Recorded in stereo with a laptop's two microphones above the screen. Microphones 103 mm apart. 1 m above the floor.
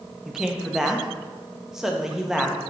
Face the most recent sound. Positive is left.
turn(degrees=-5)  # may be behind; listen again after turning